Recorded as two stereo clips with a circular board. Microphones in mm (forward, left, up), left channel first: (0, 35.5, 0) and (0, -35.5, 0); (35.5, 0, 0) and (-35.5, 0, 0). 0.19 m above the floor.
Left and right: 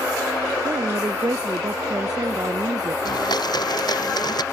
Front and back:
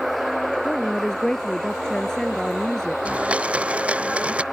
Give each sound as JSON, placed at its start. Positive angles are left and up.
{"t": 0.7, "sound": "a woman speaking", "azimuth_deg": -80}
{"t": 3.0, "sound": "a blender", "azimuth_deg": 105}